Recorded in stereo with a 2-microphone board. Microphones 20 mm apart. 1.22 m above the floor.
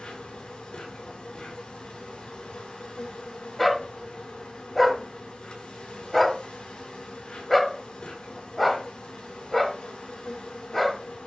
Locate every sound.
0.0 s an insect: 65° left (ahead or behind), 5.5 m
3.6 s a dog barking: 10° left (ahead or behind), 1.3 m